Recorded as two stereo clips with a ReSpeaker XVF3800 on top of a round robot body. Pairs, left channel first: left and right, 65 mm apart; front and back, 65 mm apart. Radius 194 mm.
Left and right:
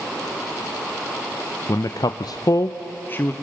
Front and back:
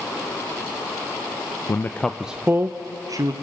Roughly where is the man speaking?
Ahead left.